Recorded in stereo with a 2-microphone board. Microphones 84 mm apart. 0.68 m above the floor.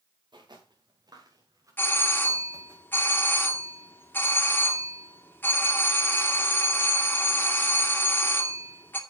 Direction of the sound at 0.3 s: 65° right (ahead or behind).